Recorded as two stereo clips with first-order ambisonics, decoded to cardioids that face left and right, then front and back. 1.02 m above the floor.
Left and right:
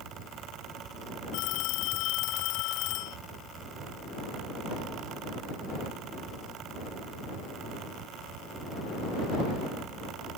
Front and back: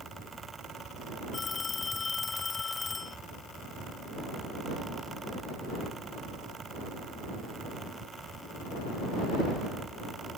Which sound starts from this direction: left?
A phone ringing, at 1.3 s.